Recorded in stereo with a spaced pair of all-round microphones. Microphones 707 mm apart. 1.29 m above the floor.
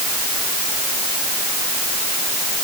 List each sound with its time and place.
Only background noise.